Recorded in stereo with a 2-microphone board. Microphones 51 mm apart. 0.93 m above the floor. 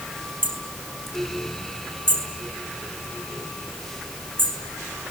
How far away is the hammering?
About 6 m.